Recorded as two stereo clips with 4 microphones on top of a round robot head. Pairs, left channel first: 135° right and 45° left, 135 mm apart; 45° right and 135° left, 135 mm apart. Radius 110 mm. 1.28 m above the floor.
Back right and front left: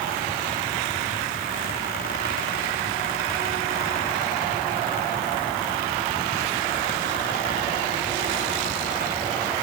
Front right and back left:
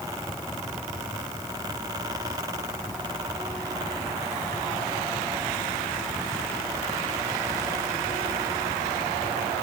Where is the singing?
I don't hear singing.